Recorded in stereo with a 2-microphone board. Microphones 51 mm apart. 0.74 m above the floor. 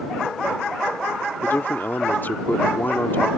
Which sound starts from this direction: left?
A man speaking, at 1.4 s.